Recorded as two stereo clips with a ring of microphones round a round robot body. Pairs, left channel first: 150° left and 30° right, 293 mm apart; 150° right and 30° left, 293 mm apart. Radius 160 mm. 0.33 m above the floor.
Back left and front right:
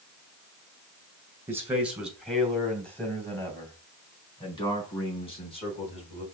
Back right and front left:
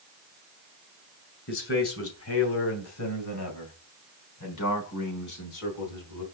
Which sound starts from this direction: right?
A man speaking, at 1.5 s.